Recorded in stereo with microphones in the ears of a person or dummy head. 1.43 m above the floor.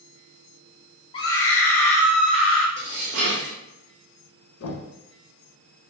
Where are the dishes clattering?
55° right (ahead or behind), 0.7 m.